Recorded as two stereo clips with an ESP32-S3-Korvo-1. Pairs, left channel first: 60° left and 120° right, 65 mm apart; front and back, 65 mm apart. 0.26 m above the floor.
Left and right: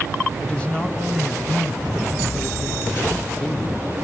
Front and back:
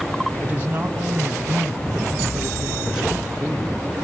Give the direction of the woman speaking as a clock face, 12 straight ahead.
8 o'clock.